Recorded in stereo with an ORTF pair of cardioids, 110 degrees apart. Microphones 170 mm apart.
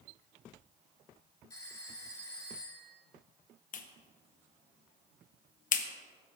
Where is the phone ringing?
20° left, 3.5 m.